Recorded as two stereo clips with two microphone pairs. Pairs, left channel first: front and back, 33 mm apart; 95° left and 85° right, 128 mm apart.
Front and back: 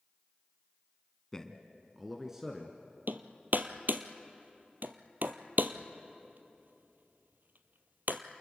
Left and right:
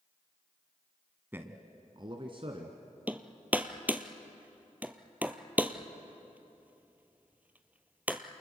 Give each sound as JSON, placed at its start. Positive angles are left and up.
{"t": 1.3, "sound": "a man speaking", "azimuth_deg": -40, "distance_m": 1.4}
{"t": 3.1, "sound": "hammering", "azimuth_deg": -160, "distance_m": 1.1}